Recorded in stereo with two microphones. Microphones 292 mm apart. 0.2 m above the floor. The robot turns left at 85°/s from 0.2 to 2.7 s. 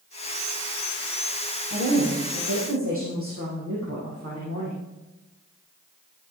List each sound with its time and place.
1.7 s a woman speaking: 45° right, 6 m; by 4.8 s 130° right, 6 m